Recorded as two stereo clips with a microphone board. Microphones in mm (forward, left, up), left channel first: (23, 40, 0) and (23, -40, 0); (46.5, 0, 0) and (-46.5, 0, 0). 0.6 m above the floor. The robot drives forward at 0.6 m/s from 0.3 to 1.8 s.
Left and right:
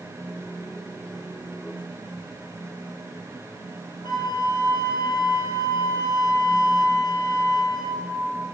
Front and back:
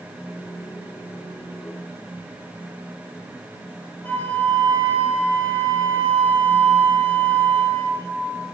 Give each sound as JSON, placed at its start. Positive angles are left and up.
{"t": 4.0, "sound": "a flute", "azimuth_deg": 70, "distance_m": 3.0}